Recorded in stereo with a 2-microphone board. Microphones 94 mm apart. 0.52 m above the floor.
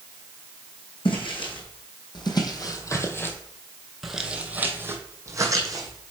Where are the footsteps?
65° left (ahead or behind), 1.7 m; by 6.1 s 45° right (ahead or behind), 1.7 m.